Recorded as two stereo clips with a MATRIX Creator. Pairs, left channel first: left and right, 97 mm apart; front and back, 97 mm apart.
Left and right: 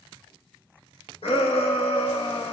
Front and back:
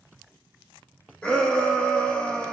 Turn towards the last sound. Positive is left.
turn(degrees=80)